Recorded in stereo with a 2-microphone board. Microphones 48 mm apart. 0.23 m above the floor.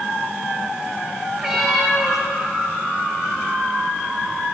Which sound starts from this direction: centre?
A cat meowing, at 1.4 s.